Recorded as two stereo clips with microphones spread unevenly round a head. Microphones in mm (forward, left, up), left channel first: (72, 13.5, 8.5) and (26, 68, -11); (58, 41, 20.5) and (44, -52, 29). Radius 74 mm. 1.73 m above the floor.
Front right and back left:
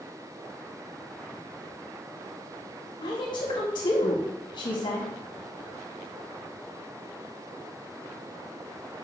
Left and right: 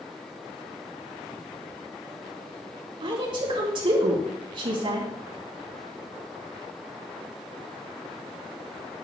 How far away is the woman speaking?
About 3 m.